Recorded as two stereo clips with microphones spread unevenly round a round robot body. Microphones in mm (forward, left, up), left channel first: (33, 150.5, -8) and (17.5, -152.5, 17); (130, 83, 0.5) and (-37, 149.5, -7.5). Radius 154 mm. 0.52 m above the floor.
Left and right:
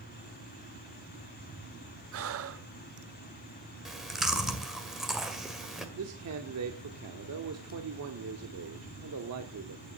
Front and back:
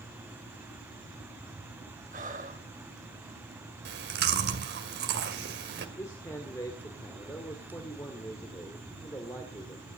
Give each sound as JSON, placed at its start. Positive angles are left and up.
{"t": 2.1, "sound": "breathing", "azimuth_deg": -140, "distance_m": 1.0}
{"t": 3.9, "sound": "chewing", "azimuth_deg": 175, "distance_m": 1.8}
{"t": 6.0, "sound": "a man speaking", "azimuth_deg": -95, "distance_m": 1.7}